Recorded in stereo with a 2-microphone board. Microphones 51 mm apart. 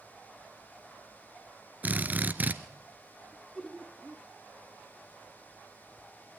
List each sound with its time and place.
1.8 s a drill: 35° right (ahead or behind), 1.2 m
3.3 s laughter: 5° left (ahead or behind), 1.2 m